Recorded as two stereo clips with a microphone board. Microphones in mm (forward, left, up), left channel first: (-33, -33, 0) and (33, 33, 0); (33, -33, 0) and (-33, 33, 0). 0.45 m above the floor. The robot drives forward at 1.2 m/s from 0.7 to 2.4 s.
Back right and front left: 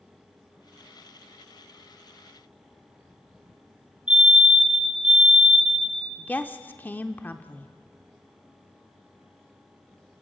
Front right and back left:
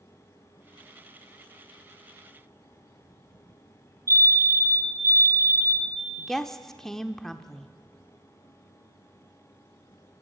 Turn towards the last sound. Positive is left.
turn(degrees=-120)